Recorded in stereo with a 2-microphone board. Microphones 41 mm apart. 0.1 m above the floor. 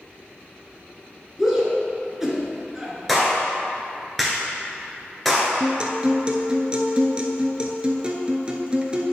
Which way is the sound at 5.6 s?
25° right (ahead or behind).